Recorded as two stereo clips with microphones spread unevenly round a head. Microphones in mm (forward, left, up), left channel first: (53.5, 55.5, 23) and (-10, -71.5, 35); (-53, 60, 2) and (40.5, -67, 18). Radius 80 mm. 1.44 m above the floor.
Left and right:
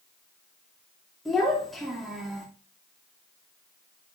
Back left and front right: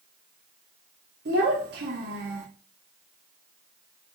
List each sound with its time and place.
1.2 s a child speaking: 25° right, 2.5 m